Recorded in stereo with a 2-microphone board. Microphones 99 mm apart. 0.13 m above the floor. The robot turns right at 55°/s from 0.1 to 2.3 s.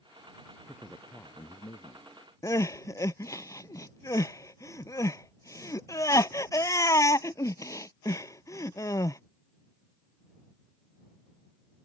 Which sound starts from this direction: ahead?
A man speaking, at 0.7 s.